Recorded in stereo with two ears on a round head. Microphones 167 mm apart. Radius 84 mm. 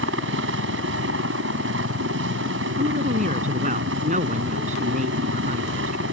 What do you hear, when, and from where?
0.0 s a helicopter: 70° right (ahead or behind)
2.8 s a woman speaking: 40° right (ahead or behind)